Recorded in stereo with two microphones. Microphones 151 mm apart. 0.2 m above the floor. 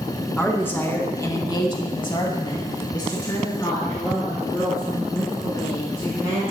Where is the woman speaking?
10° left (ahead or behind), 2 m; by 6.4 s 15° left (ahead or behind), 5.5 m.